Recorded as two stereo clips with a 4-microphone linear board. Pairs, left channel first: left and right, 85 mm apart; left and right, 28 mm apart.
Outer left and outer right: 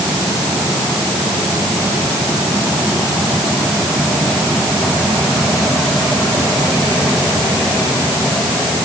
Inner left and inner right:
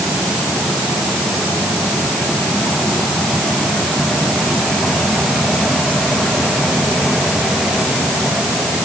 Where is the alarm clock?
I don't hear an alarm clock.